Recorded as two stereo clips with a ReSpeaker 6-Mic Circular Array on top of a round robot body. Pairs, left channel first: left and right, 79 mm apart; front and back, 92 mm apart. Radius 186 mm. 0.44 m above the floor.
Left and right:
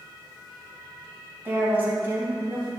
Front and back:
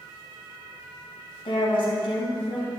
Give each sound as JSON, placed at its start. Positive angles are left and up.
{"t": 1.4, "sound": "a woman speaking", "azimuth_deg": -25, "distance_m": 4.0}